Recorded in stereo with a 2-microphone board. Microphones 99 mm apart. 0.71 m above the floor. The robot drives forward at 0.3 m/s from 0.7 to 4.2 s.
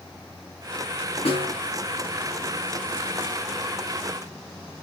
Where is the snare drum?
85° left, 4 m.